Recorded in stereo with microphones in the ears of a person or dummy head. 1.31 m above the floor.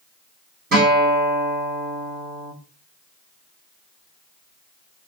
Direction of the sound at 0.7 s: 40° right (ahead or behind).